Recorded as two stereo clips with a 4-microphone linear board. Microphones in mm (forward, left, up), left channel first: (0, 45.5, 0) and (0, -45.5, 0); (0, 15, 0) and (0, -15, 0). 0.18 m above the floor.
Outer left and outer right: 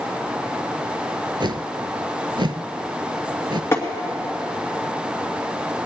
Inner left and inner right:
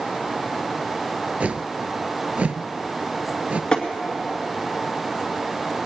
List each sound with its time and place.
1.4 s a whoosh: 60° right (ahead or behind), 0.5 m
3.7 s tapping: 30° left (ahead or behind), 2.5 m